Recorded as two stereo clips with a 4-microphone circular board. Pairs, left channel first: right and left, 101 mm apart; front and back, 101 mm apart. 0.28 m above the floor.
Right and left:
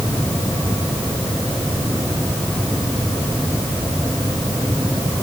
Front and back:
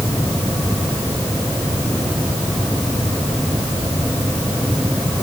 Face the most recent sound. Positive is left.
No sound to turn to.